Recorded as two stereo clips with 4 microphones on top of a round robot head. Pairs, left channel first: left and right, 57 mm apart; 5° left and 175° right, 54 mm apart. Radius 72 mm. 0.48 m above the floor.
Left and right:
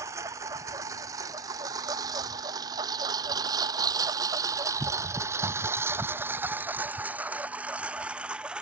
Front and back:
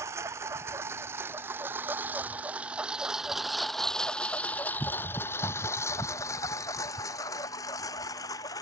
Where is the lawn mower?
135° right; by 8.6 s 15° right.